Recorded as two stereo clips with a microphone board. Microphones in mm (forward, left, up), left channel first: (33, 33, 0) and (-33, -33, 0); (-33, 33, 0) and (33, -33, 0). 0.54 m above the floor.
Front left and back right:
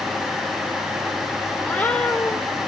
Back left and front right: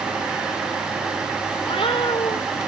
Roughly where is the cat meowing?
Behind left.